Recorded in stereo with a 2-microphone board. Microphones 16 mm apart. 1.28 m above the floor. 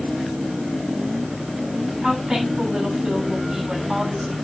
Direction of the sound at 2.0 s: 75° right (ahead or behind).